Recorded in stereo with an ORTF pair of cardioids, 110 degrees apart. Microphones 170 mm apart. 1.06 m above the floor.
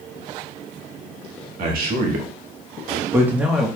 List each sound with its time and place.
1.6 s a man speaking: 65° right, 1.5 m; by 3.7 s straight ahead, 1.4 m